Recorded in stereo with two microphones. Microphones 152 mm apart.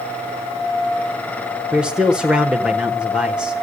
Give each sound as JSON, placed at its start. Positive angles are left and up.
{"t": 1.7, "sound": "a man speaking", "side_deg": -5, "distance_m": 1.1}